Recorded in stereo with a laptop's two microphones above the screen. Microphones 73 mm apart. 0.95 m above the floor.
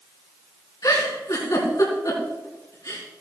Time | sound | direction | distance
0.8 | a giggle | 55° left (ahead or behind) | 4 m